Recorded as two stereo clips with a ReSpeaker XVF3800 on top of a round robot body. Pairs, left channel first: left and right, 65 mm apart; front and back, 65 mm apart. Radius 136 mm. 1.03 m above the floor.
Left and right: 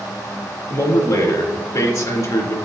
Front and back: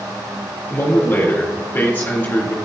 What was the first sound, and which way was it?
A man speaking, 60° left.